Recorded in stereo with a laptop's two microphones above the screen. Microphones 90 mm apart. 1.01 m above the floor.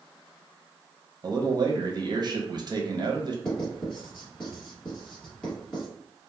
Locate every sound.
1.2 s a man speaking: 50° right (ahead or behind), 0.6 m
3.5 s writing: 5° left (ahead or behind), 1.5 m